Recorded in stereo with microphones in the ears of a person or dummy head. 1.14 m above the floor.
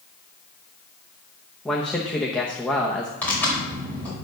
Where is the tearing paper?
5° left (ahead or behind), 4 m.